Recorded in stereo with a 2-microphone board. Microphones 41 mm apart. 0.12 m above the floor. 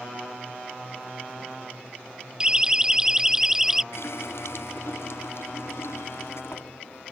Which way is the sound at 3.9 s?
80° left.